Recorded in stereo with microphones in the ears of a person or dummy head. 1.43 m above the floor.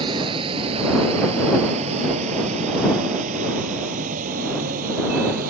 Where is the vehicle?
25° right (ahead or behind); by 5.5 s 45° right (ahead or behind).